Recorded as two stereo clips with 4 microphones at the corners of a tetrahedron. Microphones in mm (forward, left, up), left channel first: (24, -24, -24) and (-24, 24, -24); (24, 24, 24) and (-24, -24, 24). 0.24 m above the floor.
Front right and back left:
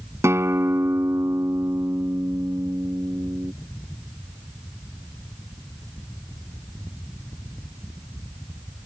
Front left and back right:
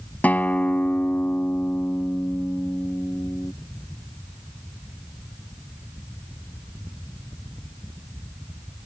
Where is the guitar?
105° left.